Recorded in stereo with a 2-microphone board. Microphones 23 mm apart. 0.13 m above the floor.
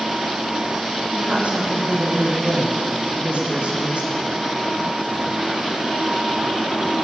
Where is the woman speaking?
60° right (ahead or behind), 8.5 m; by 4.3 s 50° right (ahead or behind), 7 m.